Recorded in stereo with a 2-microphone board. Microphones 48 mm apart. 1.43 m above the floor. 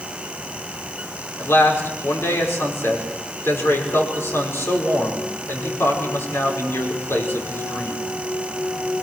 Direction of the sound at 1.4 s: 55° left (ahead or behind).